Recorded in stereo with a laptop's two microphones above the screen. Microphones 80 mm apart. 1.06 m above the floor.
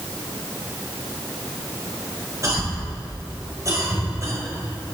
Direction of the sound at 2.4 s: 40° right (ahead or behind).